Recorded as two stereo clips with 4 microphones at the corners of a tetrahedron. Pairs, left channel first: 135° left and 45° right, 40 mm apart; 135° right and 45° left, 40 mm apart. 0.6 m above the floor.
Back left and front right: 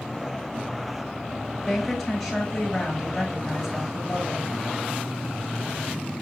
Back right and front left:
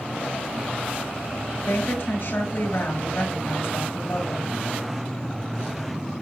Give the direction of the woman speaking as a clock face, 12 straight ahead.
5 o'clock.